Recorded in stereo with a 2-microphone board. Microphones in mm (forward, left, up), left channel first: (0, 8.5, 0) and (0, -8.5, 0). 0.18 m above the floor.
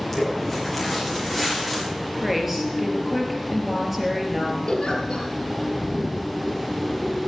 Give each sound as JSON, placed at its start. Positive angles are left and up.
{"t": 0.1, "sound": "footsteps", "side_deg": 10, "distance_m": 6.5}
{"t": 2.2, "sound": "a woman speaking", "side_deg": -10, "distance_m": 3.5}
{"t": 4.7, "sound": "a giggle", "side_deg": 60, "distance_m": 3.0}